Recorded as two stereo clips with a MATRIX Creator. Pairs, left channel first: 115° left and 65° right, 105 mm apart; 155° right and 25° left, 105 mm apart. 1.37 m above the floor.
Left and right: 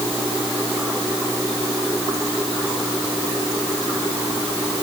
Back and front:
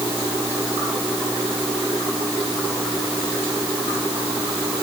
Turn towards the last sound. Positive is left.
No sound to turn to.